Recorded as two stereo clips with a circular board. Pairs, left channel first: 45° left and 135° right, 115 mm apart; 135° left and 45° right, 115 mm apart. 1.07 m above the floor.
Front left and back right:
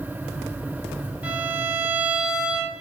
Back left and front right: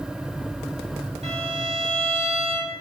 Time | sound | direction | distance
1.2 | a violin | 60° right | 2.5 m